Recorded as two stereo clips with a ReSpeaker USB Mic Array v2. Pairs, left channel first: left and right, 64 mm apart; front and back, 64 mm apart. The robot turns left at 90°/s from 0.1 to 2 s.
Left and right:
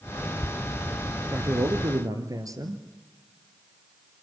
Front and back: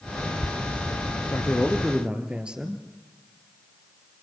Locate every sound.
1.3 s a man speaking: 45° right, 3 m; by 2.8 s 105° right, 3 m